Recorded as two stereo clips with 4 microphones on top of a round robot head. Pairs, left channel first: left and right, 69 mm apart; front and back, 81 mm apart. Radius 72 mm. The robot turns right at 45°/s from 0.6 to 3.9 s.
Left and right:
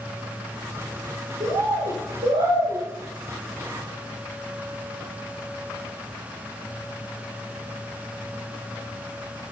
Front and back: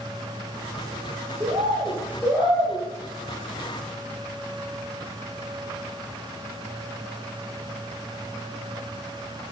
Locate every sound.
1.4 s a bird: 140° right, 0.8 m; by 2.9 s 70° right, 0.8 m